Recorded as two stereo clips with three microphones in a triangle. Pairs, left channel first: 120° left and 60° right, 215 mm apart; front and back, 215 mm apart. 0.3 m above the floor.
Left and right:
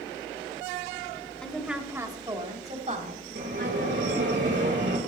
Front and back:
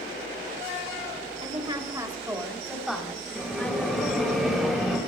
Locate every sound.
1.4 s a woman speaking: 160° right, 1.6 m; by 4.3 s 75° right, 3 m
3.4 s a bell: 90° right, 3.5 m